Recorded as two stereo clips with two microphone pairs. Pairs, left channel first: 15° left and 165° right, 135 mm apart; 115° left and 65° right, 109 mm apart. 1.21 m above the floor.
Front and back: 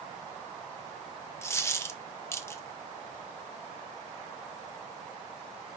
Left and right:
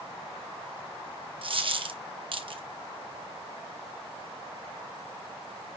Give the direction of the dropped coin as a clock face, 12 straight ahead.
2 o'clock.